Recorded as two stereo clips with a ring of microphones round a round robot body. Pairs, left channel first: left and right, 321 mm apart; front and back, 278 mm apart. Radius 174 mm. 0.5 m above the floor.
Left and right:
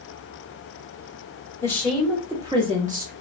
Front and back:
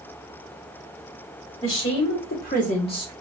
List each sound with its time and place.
1.6 s a woman speaking: 10° left, 1.7 m; by 3.1 s 65° right, 1.4 m